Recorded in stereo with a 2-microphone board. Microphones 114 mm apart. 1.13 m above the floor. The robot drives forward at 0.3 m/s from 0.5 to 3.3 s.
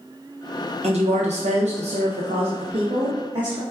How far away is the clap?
No clap in this recording.